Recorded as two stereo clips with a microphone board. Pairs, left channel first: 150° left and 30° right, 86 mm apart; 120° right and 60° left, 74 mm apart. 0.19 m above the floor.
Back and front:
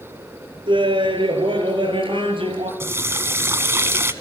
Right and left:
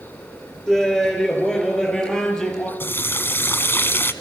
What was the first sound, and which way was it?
Laughter, 40° right.